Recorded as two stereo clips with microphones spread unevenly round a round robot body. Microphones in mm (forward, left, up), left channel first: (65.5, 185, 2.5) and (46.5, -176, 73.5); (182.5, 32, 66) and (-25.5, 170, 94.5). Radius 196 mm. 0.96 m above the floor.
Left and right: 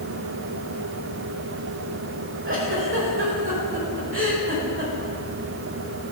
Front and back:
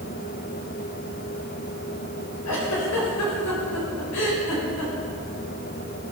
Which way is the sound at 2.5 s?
35° right.